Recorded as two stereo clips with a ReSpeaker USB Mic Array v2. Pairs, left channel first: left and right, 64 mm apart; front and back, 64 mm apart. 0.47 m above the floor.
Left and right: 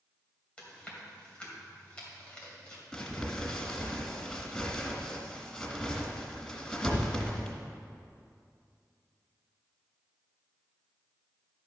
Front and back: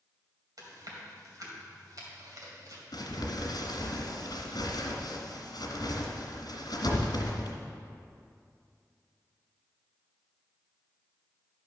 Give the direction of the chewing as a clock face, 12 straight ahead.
7 o'clock.